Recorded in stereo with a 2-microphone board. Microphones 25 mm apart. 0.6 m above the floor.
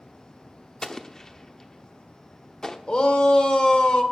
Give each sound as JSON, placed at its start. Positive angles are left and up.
{"t": 0.8, "sound": "an explosion", "side_deg": 25, "distance_m": 0.9}
{"t": 2.9, "sound": "a shout", "side_deg": 40, "distance_m": 1.8}